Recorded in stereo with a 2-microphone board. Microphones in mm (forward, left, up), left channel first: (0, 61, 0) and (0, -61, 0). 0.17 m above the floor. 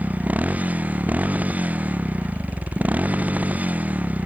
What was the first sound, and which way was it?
A motorcycle, 15° right (ahead or behind).